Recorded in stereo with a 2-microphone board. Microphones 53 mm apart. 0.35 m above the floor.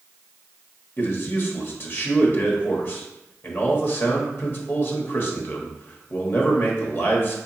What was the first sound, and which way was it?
A man speaking, 40° left (ahead or behind).